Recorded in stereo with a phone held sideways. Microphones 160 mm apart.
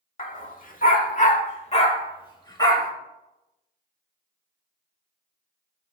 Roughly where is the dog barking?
Left.